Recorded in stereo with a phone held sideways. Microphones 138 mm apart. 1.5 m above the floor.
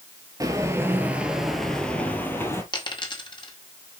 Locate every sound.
0.4 s footsteps: 25° right (ahead or behind), 1.6 m; by 2.6 s 20° left (ahead or behind), 2 m
2.7 s a dropped coin: 35° left (ahead or behind), 1.9 m